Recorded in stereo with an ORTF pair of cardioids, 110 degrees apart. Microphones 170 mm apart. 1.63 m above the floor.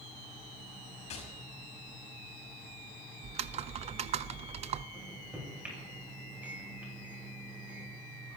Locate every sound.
1.1 s tapping: 40° left, 6 m
3.2 s typing on a keyboard: 40° right, 0.5 m
4.9 s a microwave: 10° right, 8 m